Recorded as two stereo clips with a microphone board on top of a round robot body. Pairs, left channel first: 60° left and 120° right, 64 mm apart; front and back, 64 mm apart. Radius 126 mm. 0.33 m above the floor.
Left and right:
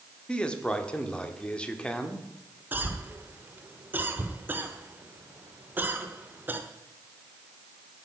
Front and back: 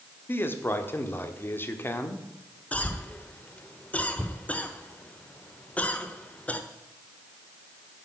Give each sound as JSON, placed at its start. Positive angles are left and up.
{"t": 0.3, "sound": "a man speaking", "azimuth_deg": 0, "distance_m": 1.5}
{"t": 2.7, "sound": "a cough", "azimuth_deg": -65, "distance_m": 1.2}